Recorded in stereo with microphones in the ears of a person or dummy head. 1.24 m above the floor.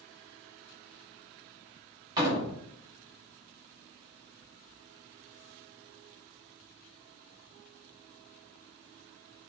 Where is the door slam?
30° right (ahead or behind), 2.5 m.